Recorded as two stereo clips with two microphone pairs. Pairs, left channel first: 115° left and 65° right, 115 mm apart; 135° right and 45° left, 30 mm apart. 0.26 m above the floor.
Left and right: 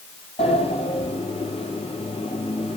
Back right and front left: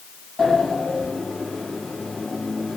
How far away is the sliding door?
About 1.6 m.